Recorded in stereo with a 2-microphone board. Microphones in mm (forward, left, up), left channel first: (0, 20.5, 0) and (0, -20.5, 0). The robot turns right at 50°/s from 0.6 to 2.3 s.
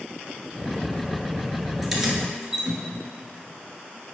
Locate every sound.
1.8 s keys jangling: 5° right (ahead or behind), 1.3 m; by 2.8 s 15° right (ahead or behind), 1.3 m